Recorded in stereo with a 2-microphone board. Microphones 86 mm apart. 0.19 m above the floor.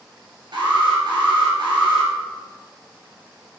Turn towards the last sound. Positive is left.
turn(degrees=-60)  # may be behind; listen again after turning